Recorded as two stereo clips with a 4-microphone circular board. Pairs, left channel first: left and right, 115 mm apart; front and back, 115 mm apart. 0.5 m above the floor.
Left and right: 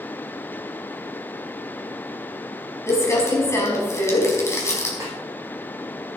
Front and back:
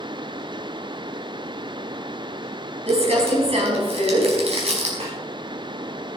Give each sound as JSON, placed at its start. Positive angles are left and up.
{"t": 2.9, "sound": "crumpling", "azimuth_deg": 155, "distance_m": 4.5}
{"t": 5.0, "sound": "a snare drum", "azimuth_deg": -155, "distance_m": 5.5}